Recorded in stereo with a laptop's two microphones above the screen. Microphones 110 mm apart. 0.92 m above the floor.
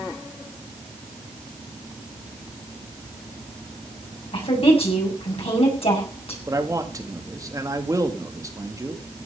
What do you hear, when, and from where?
4.3 s a woman speaking: 65° left (ahead or behind), 7 m
6.5 s a man speaking: 30° right (ahead or behind), 1.9 m